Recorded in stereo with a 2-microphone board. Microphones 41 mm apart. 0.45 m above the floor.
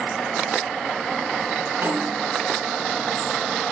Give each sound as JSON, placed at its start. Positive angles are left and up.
{"t": 1.8, "sound": "a snare drum", "side_deg": -55, "distance_m": 3.5}